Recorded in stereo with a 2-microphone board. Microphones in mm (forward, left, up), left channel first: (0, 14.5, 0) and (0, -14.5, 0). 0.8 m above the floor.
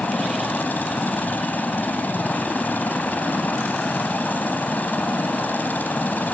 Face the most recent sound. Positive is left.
turn(degrees=75)  # may be behind; listen again after turning